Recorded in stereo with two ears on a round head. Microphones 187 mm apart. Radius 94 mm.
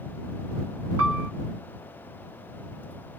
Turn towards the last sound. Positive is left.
turn(degrees=-65)  # may be behind; listen again after turning